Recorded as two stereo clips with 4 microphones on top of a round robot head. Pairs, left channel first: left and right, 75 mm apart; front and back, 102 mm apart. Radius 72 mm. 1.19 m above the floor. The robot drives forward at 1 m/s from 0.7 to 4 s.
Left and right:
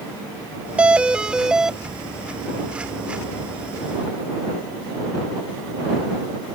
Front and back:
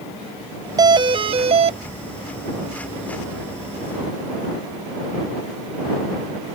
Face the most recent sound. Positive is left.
turn(degrees=-175)